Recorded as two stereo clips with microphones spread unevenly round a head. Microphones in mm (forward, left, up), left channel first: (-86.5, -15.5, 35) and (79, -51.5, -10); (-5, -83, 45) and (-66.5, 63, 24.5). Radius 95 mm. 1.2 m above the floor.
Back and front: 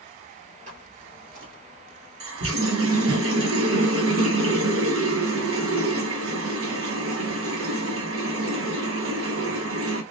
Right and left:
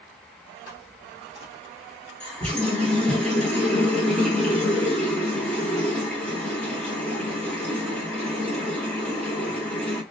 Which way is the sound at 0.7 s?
60° right.